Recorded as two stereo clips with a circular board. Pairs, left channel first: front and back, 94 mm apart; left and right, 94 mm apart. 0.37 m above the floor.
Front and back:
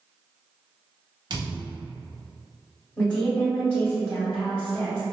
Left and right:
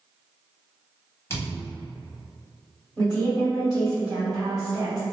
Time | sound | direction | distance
1.3 | a thud | 150° left | 0.9 m
3.0 | a woman speaking | 55° right | 2.0 m